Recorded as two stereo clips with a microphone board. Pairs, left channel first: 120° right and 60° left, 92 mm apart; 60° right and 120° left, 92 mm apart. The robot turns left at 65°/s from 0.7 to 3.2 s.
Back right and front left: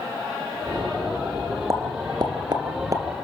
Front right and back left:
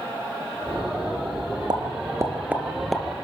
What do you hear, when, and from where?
1.7 s a pop: 105° left, 2.0 m; by 3.0 s 20° left, 2.0 m